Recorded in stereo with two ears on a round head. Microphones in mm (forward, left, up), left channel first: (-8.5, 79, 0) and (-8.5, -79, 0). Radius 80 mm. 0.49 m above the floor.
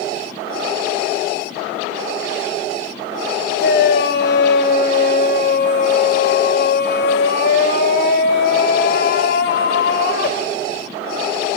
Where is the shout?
60° left (ahead or behind), 2.5 m.